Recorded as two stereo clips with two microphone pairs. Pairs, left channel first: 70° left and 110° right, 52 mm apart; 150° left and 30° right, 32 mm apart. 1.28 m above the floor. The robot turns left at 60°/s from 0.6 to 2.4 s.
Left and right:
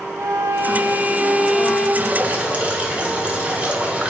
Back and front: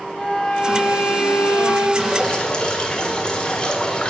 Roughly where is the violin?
Behind right.